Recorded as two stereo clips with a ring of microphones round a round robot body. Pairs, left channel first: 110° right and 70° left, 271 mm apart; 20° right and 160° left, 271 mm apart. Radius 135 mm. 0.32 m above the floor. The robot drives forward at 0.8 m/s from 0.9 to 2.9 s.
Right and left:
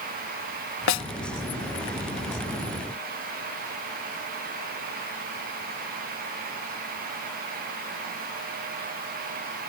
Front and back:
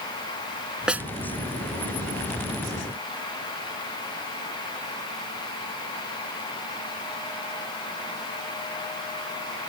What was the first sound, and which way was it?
A snare drum, 115° right.